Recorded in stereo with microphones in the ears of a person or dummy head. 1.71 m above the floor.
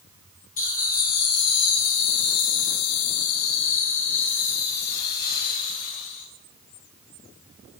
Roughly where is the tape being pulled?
No tape being pulled in this recording.